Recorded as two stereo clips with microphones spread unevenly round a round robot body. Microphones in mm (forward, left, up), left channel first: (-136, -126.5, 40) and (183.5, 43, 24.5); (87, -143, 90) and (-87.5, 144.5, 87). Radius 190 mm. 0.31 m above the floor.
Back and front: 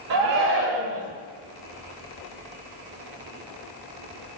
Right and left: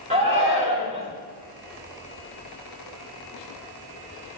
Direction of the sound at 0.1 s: 50° left.